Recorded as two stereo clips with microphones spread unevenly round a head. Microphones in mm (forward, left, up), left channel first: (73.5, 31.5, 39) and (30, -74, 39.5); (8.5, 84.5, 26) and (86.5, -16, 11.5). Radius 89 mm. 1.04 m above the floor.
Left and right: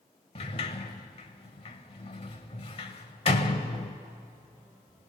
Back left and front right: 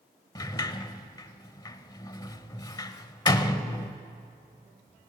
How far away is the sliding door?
About 1.0 m.